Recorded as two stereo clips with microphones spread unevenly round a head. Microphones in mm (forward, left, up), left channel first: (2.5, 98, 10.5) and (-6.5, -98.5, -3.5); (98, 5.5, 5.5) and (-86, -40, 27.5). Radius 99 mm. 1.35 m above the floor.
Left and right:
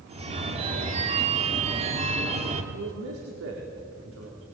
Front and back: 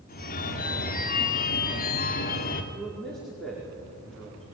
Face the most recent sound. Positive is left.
turn(degrees=-75)